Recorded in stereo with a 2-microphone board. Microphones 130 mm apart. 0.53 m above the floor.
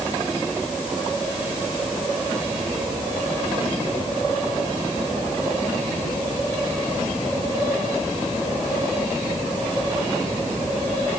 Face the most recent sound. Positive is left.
No sound to turn to.